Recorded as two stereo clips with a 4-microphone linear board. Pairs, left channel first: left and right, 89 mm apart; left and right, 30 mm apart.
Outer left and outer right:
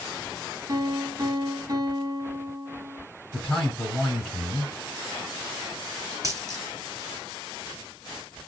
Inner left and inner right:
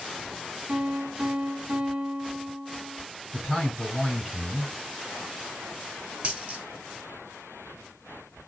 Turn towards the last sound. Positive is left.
turn(degrees=-35)  # may be behind; listen again after turning